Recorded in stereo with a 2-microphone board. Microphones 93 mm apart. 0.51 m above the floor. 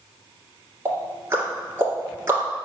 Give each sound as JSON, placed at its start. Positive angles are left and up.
{"t": 0.8, "sound": "ticking", "side_deg": -25, "distance_m": 2.5}